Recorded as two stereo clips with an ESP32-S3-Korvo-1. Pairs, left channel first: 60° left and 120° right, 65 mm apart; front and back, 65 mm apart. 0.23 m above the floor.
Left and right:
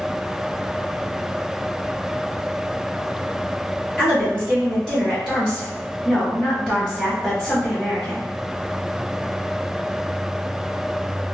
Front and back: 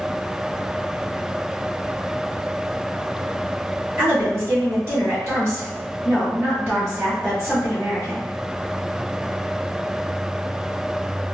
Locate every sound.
4.0 s a woman speaking: 140° left, 1.9 m